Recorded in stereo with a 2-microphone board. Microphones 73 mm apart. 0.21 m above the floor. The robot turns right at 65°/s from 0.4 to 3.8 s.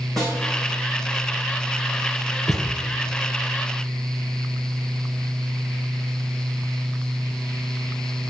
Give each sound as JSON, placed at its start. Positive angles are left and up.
{"t": 0.2, "sound": "a snare drum", "side_deg": 10, "distance_m": 4.5}
{"t": 2.5, "sound": "a thud", "side_deg": -60, "distance_m": 1.2}